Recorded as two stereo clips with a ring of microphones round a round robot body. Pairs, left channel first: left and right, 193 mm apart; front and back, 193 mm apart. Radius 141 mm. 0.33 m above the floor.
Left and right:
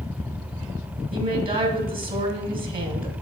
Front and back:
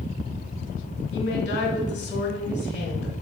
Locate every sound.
1.1 s a woman speaking: 50° right, 1.7 m